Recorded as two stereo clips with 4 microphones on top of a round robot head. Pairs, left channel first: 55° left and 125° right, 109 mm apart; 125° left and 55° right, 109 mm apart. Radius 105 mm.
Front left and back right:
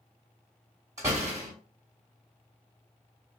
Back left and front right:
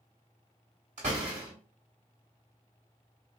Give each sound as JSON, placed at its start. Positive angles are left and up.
{"t": 1.0, "sound": "a door slam", "azimuth_deg": -65, "distance_m": 0.6}